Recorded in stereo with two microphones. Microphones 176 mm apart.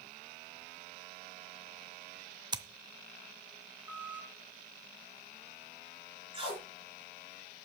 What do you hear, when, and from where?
2.5 s scissors: 25° right (ahead or behind), 0.7 m
3.9 s a squeak: 10° right (ahead or behind), 2.5 m
6.3 s tape being pulled: 30° right (ahead or behind), 4 m